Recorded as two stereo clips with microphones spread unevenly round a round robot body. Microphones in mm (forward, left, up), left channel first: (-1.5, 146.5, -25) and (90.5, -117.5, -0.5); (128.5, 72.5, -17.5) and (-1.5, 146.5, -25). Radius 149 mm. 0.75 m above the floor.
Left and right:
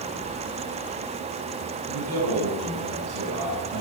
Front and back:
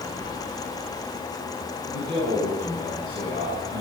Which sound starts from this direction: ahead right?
A man speaking, at 1.9 s.